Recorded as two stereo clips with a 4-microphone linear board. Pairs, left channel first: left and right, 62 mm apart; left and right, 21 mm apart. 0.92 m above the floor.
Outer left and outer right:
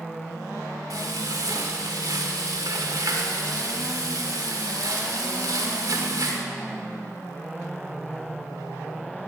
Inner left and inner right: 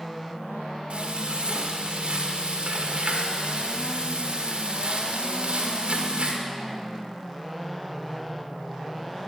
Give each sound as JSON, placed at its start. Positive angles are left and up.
{"t": 0.9, "sound": "frying", "side_deg": -85, "distance_m": 1.8}